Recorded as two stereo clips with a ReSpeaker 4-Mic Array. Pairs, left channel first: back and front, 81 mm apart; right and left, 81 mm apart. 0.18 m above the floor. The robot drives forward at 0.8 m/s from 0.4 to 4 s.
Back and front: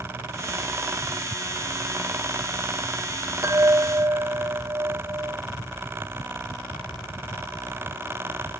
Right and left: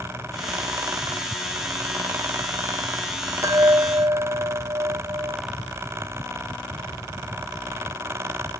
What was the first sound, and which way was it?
A chime, 50° left.